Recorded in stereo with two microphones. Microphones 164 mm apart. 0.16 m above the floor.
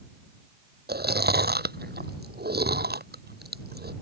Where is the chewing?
80° right.